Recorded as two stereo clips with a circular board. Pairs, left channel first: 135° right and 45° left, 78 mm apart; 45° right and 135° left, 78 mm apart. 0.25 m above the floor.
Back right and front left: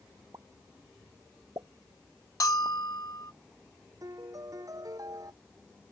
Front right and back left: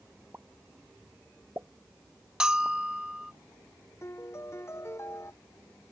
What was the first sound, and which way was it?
A pop, 75° left.